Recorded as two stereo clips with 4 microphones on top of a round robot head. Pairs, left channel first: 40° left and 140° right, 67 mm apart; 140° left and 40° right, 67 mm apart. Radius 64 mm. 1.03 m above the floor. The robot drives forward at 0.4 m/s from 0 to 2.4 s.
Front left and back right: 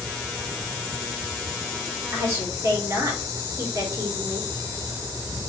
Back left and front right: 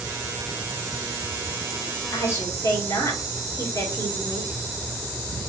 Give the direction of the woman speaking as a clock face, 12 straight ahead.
6 o'clock.